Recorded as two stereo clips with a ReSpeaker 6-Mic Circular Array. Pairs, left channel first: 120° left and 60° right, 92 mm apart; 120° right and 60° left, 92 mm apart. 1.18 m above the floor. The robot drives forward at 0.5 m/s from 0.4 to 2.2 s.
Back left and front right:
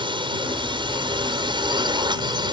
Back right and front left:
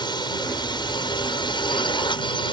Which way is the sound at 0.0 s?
85° right.